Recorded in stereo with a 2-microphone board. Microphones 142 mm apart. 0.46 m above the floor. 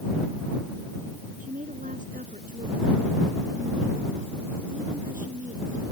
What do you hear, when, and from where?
1.4 s a woman speaking: 75° right (ahead or behind)